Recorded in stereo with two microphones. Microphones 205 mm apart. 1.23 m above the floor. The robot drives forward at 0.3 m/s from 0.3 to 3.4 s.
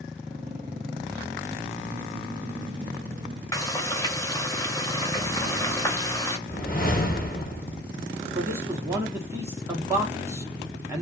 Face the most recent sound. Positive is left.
turn(degrees=-15)  # may be behind; listen again after turning